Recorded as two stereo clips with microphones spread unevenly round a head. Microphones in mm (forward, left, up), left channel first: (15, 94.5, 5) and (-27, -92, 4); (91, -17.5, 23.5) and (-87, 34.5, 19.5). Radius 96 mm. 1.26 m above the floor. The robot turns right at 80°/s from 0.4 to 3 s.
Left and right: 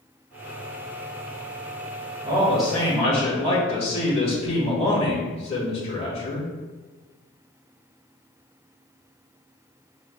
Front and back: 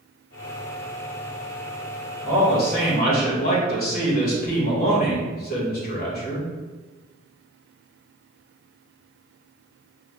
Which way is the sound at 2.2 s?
40° right.